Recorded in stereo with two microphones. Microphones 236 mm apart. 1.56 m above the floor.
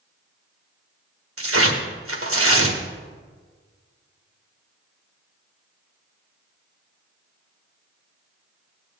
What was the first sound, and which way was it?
Tearing paper, 65° right (ahead or behind).